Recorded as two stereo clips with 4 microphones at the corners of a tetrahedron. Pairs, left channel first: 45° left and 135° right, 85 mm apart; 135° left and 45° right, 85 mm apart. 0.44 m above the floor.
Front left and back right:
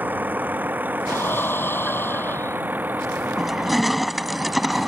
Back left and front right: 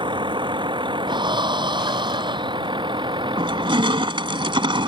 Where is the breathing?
20° right.